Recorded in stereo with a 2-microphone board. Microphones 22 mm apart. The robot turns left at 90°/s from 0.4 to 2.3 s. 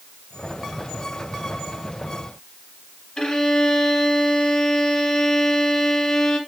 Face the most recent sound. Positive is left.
turn(degrees=35)  # may be behind; listen again after turning